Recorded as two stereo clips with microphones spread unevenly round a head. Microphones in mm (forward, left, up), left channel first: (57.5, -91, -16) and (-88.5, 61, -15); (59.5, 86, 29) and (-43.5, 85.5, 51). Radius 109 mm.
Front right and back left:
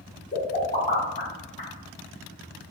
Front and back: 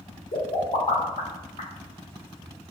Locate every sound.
0.3 s a pop: 15° left, 1.8 m